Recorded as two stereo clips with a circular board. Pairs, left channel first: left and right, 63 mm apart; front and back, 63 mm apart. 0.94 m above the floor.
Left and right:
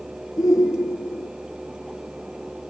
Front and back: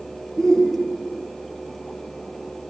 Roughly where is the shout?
Left.